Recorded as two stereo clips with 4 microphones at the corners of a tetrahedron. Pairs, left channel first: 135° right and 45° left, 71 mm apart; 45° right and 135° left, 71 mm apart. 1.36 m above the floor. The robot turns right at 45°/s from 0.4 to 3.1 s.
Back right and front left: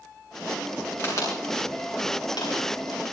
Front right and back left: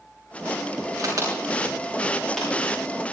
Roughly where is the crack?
Behind.